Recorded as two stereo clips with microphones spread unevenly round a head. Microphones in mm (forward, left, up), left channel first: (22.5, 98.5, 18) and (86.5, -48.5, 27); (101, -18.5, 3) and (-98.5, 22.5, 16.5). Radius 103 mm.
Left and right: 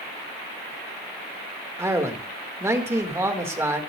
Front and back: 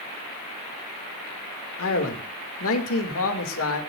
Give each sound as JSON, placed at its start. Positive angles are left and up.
{"t": 1.8, "sound": "a man speaking", "azimuth_deg": 10, "distance_m": 2.5}